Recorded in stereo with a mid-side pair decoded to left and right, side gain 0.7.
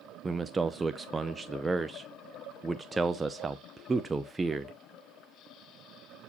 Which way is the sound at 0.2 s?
15° right.